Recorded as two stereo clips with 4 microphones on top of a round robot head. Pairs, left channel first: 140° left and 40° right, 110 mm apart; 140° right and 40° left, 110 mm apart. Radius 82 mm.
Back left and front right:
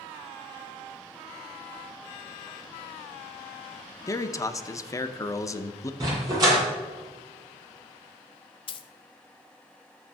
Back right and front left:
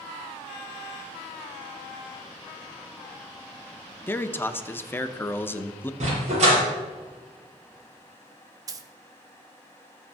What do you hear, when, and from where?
4.1 s a man speaking: 165° left, 0.7 m
6.0 s a dog barking: 15° left, 5.5 m
8.7 s a dropped coin: 100° left, 0.8 m